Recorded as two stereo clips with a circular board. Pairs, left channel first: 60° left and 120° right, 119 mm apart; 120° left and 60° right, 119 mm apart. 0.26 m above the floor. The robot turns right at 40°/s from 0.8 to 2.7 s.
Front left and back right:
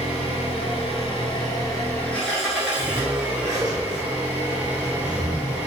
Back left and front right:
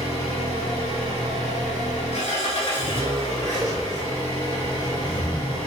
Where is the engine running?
85° left, 0.9 m; by 5.7 s 160° left, 0.9 m.